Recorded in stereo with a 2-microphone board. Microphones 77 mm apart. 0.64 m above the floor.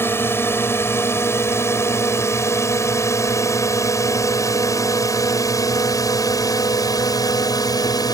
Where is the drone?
30° left (ahead or behind); by 8.1 s 55° left (ahead or behind).